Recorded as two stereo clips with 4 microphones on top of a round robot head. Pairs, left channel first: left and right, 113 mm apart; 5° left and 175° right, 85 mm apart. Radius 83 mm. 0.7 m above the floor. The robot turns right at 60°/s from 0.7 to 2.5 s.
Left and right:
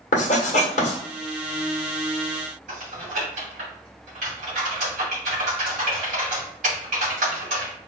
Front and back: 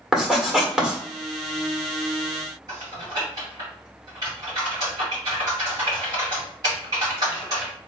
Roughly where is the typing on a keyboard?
Behind right.